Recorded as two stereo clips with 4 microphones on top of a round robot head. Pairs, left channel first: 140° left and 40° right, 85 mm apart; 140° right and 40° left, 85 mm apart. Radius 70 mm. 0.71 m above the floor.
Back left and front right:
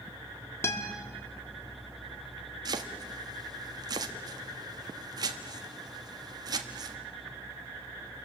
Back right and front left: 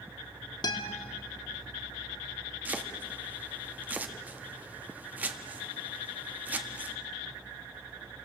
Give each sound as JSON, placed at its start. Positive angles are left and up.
{"t": 0.6, "sound": "a guitar", "azimuth_deg": -165, "distance_m": 2.0}
{"t": 2.6, "sound": "chopping", "azimuth_deg": -25, "distance_m": 1.5}